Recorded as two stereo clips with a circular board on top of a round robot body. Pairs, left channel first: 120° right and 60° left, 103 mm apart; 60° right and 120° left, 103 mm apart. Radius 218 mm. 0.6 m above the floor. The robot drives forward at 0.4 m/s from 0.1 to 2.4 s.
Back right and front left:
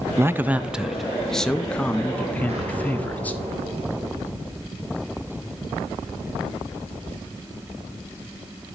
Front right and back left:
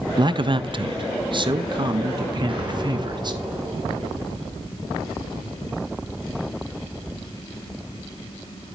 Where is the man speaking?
110° left, 0.6 m; by 3.3 s 165° left, 1.2 m.